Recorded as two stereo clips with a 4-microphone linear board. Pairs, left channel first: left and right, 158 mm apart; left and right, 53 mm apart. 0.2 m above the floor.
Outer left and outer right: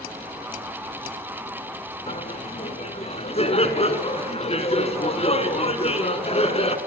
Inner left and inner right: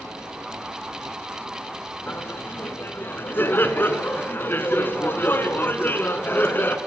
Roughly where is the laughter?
Left.